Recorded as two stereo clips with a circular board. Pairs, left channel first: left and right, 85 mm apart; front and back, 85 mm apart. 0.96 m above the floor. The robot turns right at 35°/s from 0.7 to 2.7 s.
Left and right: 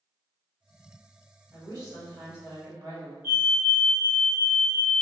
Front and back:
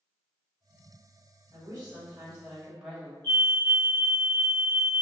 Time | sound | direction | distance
1.5 | a woman speaking | 145° right | 1.8 m
3.2 | a fire alarm | 45° right | 1.3 m